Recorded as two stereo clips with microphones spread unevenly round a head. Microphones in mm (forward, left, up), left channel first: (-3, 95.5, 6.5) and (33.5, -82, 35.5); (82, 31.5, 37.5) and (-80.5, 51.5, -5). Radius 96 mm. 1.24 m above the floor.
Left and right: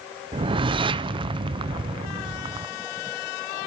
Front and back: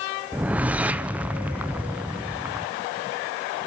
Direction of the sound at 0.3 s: 135° right.